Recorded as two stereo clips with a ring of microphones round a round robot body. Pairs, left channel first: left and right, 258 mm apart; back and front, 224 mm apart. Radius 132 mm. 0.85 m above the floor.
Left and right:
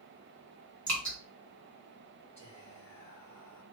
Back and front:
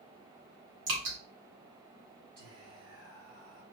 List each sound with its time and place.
0.9 s dripping: 5° left, 2 m
2.4 s whispering: 10° left, 2.5 m